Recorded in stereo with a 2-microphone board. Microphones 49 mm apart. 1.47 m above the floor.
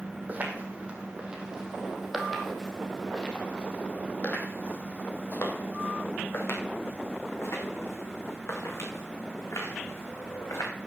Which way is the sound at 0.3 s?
30° right (ahead or behind).